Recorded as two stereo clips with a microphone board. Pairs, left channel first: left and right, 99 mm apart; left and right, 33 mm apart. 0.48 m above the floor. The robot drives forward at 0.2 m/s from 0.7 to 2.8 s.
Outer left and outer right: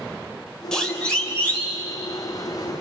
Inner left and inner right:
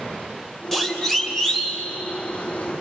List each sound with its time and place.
0.7 s a siren: 5° left (ahead or behind), 3 m; by 1.8 s 20° left (ahead or behind), 3.5 m